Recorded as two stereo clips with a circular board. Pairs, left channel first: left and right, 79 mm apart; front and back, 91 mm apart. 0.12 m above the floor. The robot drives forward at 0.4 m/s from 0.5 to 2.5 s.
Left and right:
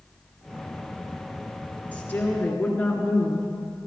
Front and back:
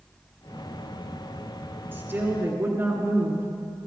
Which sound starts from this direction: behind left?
A woman speaking, at 1.9 s.